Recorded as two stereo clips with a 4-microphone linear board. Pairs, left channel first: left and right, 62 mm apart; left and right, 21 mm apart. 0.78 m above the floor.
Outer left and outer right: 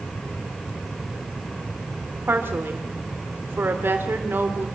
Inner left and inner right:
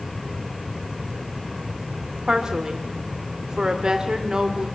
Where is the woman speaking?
35° right (ahead or behind), 2.5 m.